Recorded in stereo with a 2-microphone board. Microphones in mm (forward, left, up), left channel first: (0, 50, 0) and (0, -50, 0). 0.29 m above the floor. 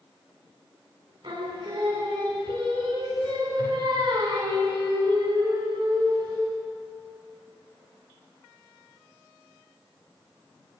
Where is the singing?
60° right (ahead or behind), 2 m.